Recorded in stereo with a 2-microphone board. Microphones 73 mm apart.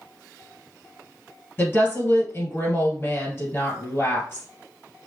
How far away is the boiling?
I don't hear boiling.